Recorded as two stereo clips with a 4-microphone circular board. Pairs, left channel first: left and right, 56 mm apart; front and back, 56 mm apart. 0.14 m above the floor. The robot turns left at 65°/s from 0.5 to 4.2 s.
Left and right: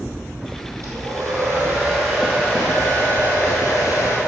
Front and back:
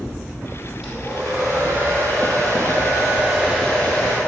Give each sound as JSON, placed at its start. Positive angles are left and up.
{"t": 0.8, "sound": "a hair dryer", "azimuth_deg": -90, "distance_m": 3.0}